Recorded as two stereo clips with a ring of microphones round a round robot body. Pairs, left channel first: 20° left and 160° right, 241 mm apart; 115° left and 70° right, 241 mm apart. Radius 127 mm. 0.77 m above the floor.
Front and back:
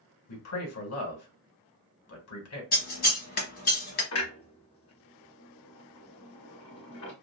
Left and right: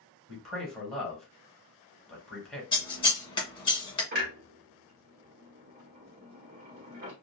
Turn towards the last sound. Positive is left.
turn(degrees=-15)